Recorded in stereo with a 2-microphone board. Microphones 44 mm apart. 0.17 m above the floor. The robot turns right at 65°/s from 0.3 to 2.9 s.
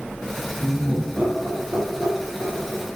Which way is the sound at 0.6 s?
5° left (ahead or behind).